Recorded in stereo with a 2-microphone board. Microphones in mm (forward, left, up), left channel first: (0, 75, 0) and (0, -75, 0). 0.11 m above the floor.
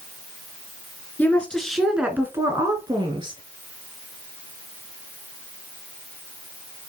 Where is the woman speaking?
10° left (ahead or behind), 1.5 m; by 3.4 s 35° right (ahead or behind), 1.8 m.